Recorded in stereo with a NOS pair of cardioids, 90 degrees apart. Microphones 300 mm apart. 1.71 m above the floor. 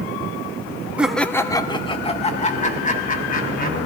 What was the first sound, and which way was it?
Laughter, 5° right.